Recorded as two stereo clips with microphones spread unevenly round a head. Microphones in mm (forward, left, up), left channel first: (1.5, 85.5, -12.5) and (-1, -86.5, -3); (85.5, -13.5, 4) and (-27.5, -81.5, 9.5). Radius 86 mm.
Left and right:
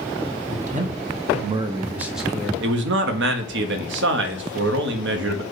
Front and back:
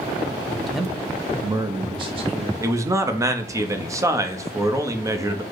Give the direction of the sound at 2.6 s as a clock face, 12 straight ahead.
3 o'clock.